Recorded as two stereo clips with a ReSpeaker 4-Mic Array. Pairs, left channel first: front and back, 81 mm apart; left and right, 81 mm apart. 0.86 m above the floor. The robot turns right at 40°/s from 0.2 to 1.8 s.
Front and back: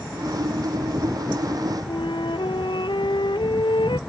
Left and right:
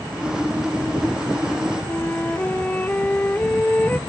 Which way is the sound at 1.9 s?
20° left.